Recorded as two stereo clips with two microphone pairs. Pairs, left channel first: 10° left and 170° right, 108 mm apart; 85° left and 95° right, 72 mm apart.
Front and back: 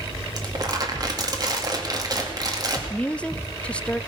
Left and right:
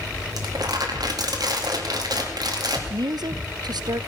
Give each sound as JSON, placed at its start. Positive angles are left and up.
{"t": 0.4, "sound": "crumpling", "azimuth_deg": -120, "distance_m": 2.5}
{"t": 2.9, "sound": "a woman speaking", "azimuth_deg": -75, "distance_m": 0.6}